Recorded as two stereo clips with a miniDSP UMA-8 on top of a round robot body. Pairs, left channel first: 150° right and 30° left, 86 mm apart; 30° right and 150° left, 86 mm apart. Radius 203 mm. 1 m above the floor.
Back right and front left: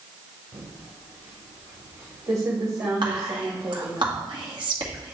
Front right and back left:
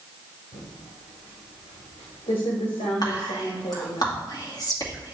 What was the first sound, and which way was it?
Typing on a keyboard, 25° right.